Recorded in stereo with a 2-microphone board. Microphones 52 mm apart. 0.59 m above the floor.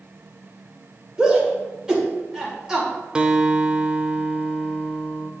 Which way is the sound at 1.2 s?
15° right (ahead or behind).